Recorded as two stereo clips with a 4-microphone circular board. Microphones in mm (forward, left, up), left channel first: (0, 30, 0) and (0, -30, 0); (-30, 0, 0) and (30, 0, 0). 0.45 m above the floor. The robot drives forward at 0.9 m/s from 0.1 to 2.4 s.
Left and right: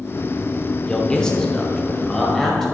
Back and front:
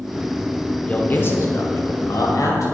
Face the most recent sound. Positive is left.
turn(degrees=175)